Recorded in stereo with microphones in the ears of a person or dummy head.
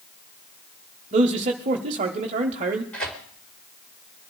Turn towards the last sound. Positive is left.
turn(degrees=5)  # may be behind; listen again after turning